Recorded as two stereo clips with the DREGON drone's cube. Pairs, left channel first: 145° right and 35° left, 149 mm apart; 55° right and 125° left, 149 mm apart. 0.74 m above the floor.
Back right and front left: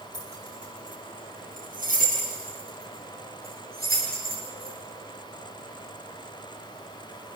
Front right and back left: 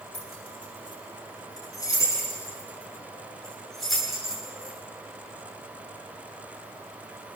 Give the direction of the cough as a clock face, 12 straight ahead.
I don't hear a cough.